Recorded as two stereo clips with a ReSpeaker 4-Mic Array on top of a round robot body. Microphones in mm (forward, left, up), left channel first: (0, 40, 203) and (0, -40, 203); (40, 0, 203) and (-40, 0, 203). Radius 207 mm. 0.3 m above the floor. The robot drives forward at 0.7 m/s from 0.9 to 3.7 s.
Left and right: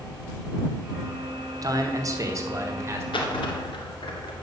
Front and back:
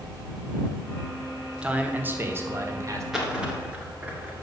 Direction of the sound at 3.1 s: 95° left.